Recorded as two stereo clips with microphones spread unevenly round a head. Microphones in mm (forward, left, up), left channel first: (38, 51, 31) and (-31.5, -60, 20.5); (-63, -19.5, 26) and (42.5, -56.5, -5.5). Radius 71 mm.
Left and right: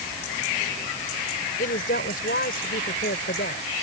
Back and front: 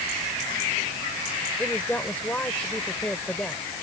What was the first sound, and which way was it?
A woman speaking, 85° left.